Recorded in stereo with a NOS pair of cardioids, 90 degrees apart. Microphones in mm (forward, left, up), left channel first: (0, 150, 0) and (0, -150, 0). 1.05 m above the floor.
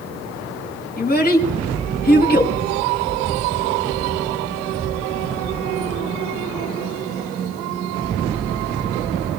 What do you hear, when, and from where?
1.0 s a child speaking: 30° left, 5.5 m